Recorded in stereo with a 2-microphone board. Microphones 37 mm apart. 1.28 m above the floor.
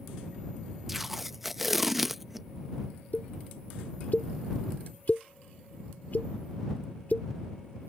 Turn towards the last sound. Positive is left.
turn(degrees=50)  # may be behind; listen again after turning